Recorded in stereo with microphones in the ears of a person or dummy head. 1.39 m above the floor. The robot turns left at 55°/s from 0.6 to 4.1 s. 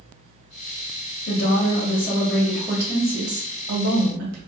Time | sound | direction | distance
1.3 | a woman speaking | 70° left | 1.6 m